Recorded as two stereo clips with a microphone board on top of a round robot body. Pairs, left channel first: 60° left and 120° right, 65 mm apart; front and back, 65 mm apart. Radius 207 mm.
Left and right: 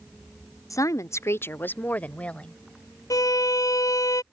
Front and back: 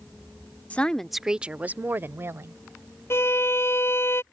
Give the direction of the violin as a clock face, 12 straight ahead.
10 o'clock.